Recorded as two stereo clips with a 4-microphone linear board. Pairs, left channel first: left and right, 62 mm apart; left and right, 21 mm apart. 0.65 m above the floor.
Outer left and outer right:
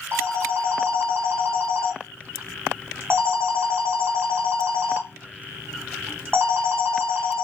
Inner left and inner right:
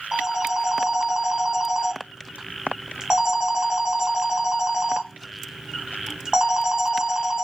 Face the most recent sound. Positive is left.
turn(degrees=-45)  # may be behind; listen again after turning